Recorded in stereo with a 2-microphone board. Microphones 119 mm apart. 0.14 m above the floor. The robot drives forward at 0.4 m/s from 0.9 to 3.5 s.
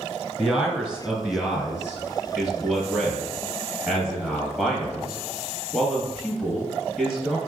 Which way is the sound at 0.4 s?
5° right (ahead or behind).